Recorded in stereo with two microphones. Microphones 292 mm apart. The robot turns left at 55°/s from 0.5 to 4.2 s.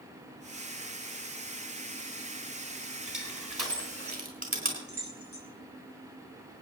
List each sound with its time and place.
3.1 s crushing: 90° right, 4 m; by 4.8 s 25° right (ahead or behind), 4 m
4.9 s keys jangling: 75° left (ahead or behind), 5 m